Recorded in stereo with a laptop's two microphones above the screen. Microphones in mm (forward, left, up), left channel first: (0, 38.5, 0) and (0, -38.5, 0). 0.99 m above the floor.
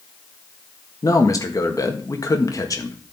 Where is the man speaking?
45° left (ahead or behind), 1.5 m.